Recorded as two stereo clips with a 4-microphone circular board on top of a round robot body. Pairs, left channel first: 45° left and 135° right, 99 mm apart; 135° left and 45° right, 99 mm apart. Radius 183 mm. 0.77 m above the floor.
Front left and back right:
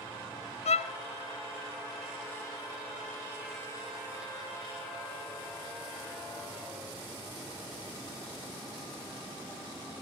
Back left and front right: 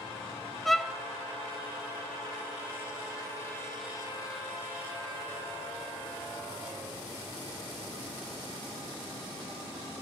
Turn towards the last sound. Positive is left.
turn(degrees=50)